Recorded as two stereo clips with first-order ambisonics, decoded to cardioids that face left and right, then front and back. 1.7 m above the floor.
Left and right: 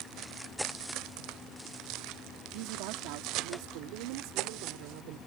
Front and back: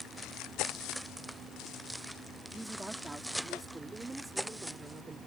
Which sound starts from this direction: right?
A woman speaking, at 2.5 s.